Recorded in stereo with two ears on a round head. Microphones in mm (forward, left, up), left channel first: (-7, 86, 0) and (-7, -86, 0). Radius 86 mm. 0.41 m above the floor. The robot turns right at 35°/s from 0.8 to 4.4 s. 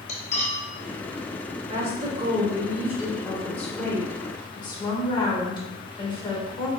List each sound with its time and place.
0.1 s cutlery clinking: 35° left (ahead or behind), 0.8 m
1.7 s a woman speaking: 55° right, 1.1 m; by 6.7 s 40° left, 1.1 m